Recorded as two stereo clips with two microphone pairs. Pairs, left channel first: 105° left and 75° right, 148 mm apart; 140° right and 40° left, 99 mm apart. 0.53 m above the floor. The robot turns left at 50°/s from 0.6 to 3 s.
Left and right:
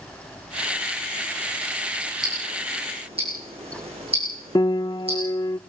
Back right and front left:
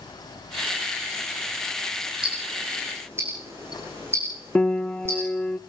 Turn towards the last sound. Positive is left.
turn(degrees=155)